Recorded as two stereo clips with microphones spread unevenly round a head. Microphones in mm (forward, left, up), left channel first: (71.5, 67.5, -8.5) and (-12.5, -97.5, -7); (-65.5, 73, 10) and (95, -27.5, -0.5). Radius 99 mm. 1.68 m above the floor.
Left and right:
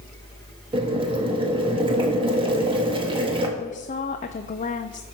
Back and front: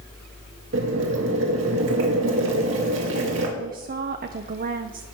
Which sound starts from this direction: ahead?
A woman speaking, at 3.6 s.